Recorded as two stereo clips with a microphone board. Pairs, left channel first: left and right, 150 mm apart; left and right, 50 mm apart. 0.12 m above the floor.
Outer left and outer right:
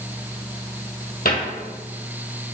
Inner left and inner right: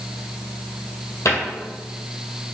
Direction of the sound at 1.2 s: 65° left (ahead or behind).